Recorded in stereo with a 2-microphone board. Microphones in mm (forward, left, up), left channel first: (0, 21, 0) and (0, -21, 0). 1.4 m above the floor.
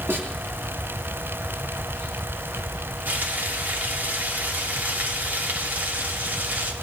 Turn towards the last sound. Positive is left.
turn(degrees=-50)  # may be behind; listen again after turning